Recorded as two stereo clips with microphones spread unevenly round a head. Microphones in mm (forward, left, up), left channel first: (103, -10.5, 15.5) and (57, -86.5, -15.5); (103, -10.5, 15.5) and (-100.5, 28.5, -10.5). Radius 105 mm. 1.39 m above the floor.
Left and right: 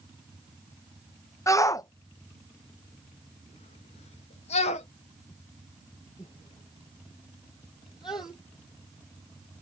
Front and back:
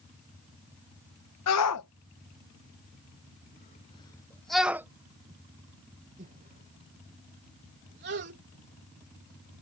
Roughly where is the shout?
Ahead.